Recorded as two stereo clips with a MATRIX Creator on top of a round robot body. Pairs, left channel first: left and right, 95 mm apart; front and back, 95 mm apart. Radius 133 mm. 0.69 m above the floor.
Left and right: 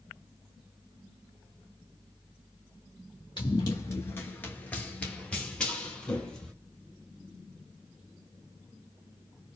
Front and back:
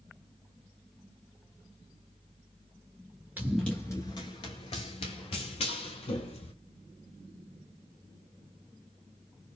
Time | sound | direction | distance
3.4 | running footsteps | 120° left | 0.6 m